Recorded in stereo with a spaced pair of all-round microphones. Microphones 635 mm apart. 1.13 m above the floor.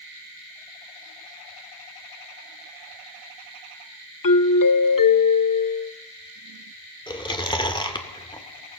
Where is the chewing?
5° left (ahead or behind), 1.8 m.